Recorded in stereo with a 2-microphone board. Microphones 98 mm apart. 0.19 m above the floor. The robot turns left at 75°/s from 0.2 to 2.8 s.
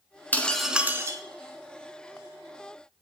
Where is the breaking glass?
20° left, 0.7 m; by 1.2 s 45° right, 0.7 m.